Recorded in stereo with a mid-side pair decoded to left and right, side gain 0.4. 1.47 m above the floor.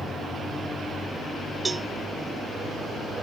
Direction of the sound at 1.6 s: 25° right.